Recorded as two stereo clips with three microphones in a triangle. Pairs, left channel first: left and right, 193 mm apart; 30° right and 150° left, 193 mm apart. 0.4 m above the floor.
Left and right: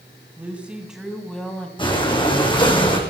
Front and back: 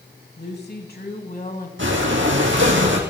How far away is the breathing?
About 3 m.